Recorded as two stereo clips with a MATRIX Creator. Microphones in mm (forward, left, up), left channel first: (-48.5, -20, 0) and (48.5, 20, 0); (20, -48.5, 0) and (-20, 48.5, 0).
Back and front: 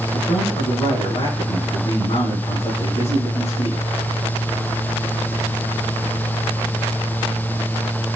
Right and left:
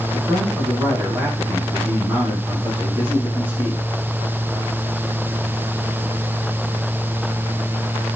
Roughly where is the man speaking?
Behind.